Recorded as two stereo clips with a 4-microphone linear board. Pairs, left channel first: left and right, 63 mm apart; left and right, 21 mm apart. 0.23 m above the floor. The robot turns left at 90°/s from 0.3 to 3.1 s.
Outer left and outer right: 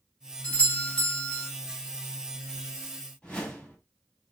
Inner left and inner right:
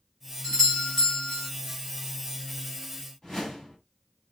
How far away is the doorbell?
About 1.4 m.